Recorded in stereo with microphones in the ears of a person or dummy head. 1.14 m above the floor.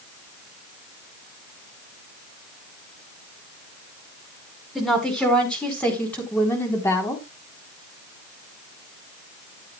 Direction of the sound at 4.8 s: Centre (ahead or behind).